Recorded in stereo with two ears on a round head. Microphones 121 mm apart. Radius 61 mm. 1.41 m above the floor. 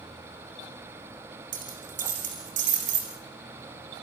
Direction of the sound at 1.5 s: 65° right (ahead or behind).